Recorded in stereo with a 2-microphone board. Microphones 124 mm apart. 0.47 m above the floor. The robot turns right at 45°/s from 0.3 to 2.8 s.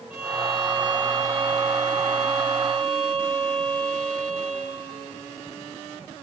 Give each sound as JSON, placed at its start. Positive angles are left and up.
{"t": 0.1, "sound": "a violin", "azimuth_deg": -160, "distance_m": 2.5}